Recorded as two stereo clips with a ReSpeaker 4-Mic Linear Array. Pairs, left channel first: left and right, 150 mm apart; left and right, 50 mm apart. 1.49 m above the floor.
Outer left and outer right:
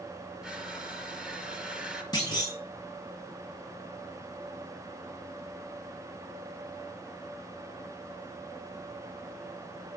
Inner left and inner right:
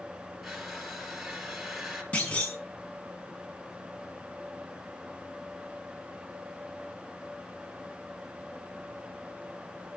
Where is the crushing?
5° right (ahead or behind), 4.5 m.